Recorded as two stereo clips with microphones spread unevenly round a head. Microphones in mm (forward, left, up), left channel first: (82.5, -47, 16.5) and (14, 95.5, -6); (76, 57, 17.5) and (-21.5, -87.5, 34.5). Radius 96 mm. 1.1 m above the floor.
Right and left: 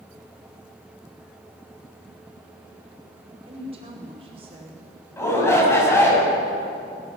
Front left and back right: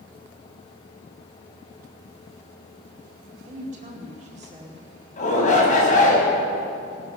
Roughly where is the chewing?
I don't hear chewing.